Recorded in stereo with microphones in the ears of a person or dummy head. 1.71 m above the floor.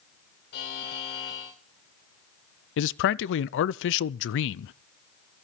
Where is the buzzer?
50° left (ahead or behind), 2 m.